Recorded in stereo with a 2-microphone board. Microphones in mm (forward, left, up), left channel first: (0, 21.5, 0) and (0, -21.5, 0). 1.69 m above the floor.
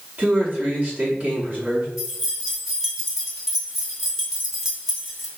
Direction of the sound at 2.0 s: 10° right (ahead or behind).